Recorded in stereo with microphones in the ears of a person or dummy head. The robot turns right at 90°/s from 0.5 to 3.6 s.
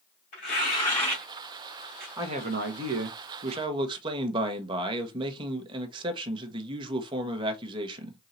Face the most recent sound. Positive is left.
turn(degrees=-30)